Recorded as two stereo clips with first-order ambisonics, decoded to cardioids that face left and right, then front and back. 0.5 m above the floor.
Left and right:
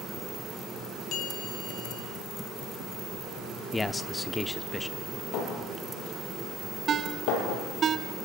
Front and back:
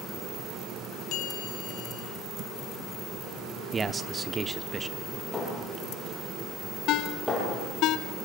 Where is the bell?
40° left, 3.5 m.